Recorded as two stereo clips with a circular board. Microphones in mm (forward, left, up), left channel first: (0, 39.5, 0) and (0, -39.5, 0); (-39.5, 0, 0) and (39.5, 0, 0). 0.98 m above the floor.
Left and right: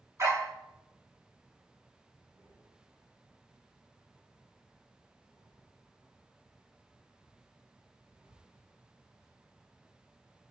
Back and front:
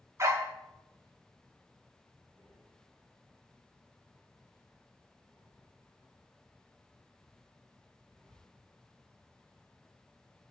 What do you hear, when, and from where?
0.2 s a dog barking: 45° right, 1.3 m
2.3 s breathing: 80° right, 4 m